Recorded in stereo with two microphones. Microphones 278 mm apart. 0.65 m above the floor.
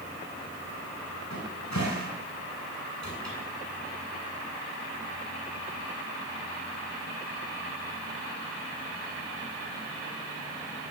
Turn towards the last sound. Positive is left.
turn(degrees=80)